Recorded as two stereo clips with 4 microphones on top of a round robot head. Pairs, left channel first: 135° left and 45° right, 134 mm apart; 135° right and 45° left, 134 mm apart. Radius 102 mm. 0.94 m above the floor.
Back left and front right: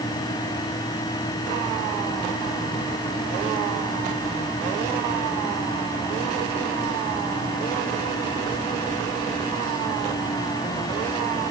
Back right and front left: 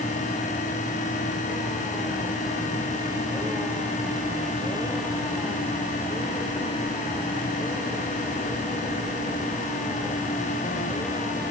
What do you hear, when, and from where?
Only background noise.